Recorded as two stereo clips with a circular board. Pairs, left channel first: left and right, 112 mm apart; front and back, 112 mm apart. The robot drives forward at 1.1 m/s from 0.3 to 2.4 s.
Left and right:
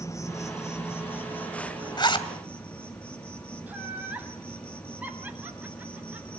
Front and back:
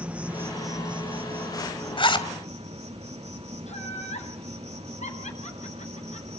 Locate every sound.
0.0 s an insect: 115° left, 1.1 m; by 6.4 s 170° left, 2.5 m
2.0 s a zipper: 40° left, 2 m; by 2.3 s 50° left, 1.9 m
3.7 s laughter: 15° right, 7.5 m